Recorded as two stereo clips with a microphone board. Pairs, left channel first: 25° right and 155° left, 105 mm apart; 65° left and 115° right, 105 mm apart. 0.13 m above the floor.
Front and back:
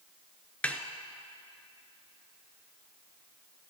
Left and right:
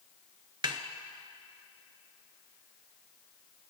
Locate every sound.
0.6 s a snare drum: 95° right, 0.5 m